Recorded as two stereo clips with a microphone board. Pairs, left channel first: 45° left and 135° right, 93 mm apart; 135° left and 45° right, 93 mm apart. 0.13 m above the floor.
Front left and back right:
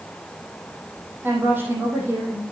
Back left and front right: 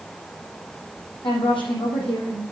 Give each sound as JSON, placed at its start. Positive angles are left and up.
{"t": 1.2, "sound": "a woman speaking", "azimuth_deg": 160, "distance_m": 4.5}